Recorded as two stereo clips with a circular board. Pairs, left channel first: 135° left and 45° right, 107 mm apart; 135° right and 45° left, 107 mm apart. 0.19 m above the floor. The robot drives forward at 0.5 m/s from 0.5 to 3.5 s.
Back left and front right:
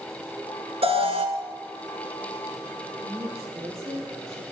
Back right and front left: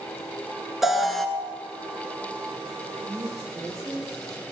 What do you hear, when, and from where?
0.8 s an alarm: 40° right, 1.5 m; by 1.3 s 45° right, 1.3 m
3.0 s a woman speaking: 5° right, 6.5 m